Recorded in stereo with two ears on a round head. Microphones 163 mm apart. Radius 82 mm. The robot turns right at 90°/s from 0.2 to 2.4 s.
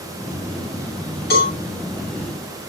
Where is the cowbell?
60° left (ahead or behind), 8 m; by 1.5 s 40° left (ahead or behind), 8 m.